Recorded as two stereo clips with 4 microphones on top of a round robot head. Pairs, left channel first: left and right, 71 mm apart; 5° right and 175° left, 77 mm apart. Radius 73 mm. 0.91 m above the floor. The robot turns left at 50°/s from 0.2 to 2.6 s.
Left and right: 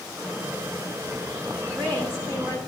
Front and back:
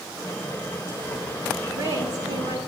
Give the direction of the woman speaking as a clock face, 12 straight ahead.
4 o'clock.